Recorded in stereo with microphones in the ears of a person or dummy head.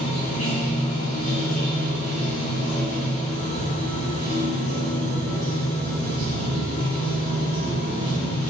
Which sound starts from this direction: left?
Running water, at 0.0 s.